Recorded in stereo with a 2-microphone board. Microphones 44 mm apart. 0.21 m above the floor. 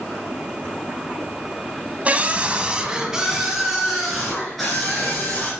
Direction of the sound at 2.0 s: 30° right (ahead or behind).